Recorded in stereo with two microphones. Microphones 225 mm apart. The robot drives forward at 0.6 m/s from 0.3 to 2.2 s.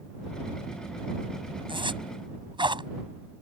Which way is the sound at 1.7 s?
20° right (ahead or behind).